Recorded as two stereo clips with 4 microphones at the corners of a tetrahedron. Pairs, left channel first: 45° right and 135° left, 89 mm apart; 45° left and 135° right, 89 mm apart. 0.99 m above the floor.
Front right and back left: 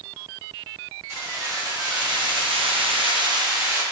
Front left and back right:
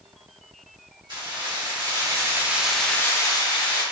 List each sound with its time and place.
1.1 s keys jangling: 170° right, 1.4 m; by 3.8 s 75° left, 0.9 m